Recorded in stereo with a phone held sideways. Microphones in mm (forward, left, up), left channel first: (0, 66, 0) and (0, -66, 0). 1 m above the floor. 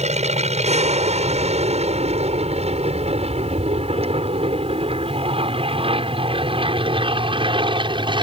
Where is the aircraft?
55° right (ahead or behind); by 8.2 s 35° right (ahead or behind).